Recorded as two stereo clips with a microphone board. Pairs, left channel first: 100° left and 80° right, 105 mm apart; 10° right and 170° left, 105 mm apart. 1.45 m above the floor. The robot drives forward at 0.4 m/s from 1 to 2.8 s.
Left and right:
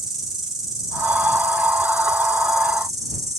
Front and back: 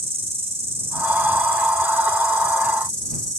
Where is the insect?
170° right, 3.5 m.